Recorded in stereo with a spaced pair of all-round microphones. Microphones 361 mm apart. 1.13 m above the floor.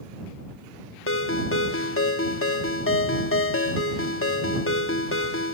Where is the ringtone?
35° left (ahead or behind).